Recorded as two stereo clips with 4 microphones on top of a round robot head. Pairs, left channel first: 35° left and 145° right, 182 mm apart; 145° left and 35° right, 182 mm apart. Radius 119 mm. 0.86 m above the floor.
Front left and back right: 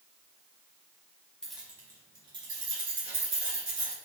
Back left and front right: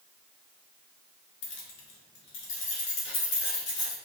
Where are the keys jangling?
120° left, 0.9 m; by 3.9 s 160° left, 3.5 m.